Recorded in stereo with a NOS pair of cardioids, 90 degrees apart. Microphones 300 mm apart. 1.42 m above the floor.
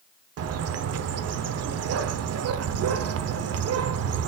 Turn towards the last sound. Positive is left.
turn(degrees=-55)